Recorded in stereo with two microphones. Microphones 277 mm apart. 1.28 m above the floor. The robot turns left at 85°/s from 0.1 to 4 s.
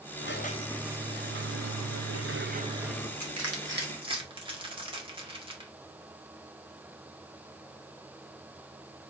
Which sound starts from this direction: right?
Crushing, at 3.2 s.